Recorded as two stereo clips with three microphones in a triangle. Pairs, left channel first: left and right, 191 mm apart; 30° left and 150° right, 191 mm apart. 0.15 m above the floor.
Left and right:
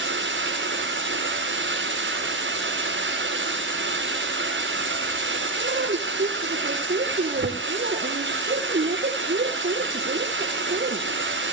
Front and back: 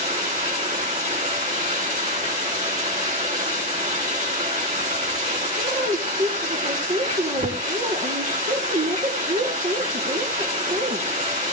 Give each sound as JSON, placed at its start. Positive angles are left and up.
{"t": 0.0, "sound": "running water", "azimuth_deg": -100, "distance_m": 6.5}
{"t": 5.6, "sound": "a woman speaking", "azimuth_deg": -110, "distance_m": 3.5}